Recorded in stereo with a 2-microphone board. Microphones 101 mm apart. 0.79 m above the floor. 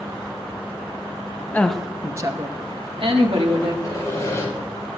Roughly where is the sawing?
Left.